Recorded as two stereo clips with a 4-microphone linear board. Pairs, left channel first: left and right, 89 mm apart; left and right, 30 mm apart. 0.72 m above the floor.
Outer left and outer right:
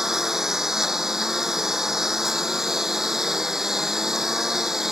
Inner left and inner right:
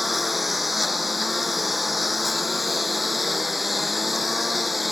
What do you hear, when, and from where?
0.0 s a lawn mower: 5° right (ahead or behind)